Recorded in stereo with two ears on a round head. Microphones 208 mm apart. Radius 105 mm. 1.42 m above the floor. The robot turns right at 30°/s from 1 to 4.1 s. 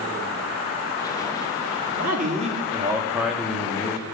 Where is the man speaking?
45° right, 2.5 m; by 4.0 s 20° left, 2.5 m.